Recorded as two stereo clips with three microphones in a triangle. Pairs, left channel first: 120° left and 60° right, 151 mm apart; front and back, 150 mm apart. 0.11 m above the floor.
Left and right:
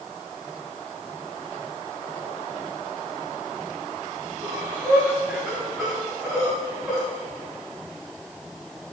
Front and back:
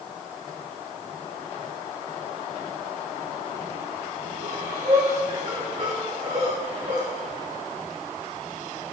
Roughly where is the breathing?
Behind right.